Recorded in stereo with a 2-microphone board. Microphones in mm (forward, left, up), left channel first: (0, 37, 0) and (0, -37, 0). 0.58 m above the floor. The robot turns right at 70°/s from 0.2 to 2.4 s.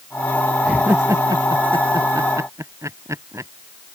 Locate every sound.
0.6 s laughter: 10° right (ahead or behind); by 3.5 s 45° right (ahead or behind)